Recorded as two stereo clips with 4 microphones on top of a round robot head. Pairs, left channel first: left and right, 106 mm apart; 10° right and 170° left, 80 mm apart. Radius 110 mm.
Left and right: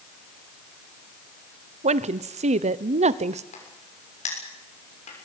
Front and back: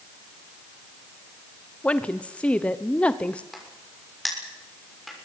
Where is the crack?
85° left, 6.5 m.